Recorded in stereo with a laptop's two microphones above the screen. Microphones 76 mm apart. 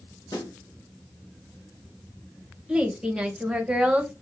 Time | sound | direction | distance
0.3 | a snare drum | 50° left (ahead or behind) | 1.8 m
2.7 | a woman speaking | 15° right (ahead or behind) | 0.7 m